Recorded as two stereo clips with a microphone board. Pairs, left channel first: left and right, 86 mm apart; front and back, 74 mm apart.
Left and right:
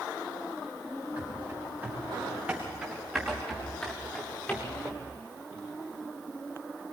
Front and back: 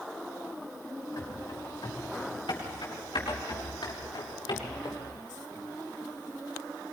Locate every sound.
1.2 s running footsteps: 30° right, 7 m; by 5.0 s 25° left, 5 m